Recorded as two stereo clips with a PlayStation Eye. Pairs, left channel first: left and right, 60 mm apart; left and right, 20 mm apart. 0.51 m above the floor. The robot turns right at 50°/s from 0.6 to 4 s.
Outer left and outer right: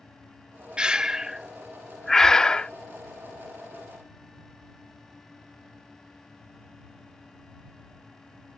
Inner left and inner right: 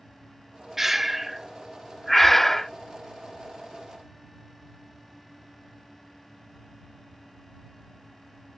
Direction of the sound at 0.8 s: 15° right (ahead or behind).